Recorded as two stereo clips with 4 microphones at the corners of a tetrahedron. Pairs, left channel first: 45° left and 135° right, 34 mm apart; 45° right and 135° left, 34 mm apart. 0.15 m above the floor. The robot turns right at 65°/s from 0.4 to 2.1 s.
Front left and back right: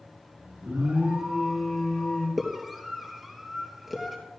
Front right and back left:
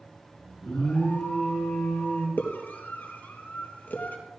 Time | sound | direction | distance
0.6 | an alarm | 115° right | 6 m
2.4 | a scream | 50° right | 3.5 m